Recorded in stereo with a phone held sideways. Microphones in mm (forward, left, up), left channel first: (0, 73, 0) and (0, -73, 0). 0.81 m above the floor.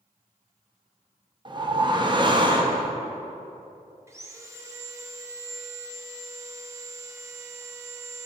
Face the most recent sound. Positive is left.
turn(degrees=-20)  # may be behind; listen again after turning